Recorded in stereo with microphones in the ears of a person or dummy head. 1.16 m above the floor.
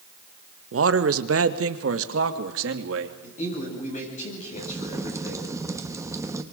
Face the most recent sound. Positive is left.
turn(degrees=-15)  # may be behind; listen again after turning